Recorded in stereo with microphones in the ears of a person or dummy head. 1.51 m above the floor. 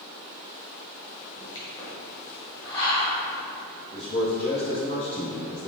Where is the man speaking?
60° left (ahead or behind), 1.4 m.